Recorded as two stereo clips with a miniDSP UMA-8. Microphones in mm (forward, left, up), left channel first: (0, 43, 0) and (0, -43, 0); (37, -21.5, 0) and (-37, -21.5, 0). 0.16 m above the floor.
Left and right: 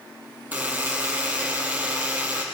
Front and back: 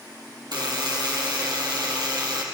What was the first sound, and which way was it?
A buzzer, 160° right.